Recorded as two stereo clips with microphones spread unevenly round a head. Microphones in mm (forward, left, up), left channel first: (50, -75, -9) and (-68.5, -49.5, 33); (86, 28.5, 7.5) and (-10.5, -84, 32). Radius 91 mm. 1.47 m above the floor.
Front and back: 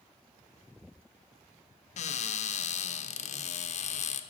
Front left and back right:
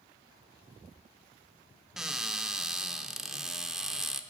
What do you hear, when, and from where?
2.0 s a cupboard door: 45° right, 0.6 m